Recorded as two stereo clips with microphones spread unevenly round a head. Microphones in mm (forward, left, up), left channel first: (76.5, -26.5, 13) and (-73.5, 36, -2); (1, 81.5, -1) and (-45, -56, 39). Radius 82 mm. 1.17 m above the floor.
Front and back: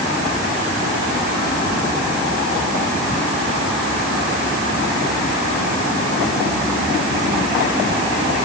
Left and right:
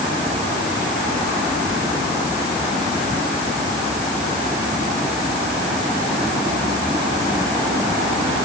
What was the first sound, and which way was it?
Only background noise.